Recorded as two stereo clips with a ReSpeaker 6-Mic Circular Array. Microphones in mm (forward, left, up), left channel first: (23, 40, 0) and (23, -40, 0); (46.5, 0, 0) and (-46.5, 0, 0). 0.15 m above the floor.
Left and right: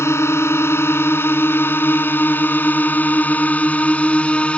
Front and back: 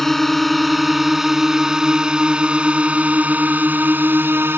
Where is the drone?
85° left; by 4.6 s 150° left.